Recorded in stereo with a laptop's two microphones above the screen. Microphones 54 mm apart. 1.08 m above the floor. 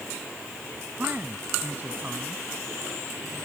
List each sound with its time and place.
1.0 s a man speaking: 35° right (ahead or behind)